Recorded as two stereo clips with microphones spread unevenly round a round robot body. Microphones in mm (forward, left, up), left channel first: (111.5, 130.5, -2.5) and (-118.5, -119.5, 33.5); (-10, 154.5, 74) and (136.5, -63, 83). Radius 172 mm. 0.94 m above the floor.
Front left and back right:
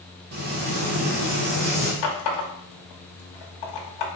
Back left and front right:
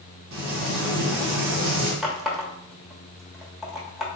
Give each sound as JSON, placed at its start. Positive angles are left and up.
{"t": 0.3, "sound": "frying", "azimuth_deg": -75, "distance_m": 1.3}
{"t": 2.0, "sound": "a running tap", "azimuth_deg": 35, "distance_m": 1.2}